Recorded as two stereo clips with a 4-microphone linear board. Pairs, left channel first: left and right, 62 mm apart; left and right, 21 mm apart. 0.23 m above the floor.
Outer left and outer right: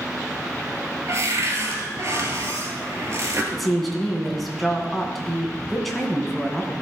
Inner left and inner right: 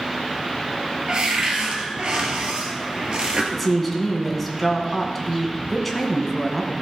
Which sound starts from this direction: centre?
A woman speaking, at 3.5 s.